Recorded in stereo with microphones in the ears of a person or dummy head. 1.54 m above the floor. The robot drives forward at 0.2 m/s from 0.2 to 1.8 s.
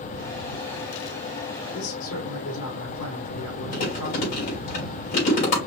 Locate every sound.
1.7 s a man speaking: 75° left (ahead or behind), 3.5 m
3.7 s chewing: 45° left (ahead or behind), 3.5 m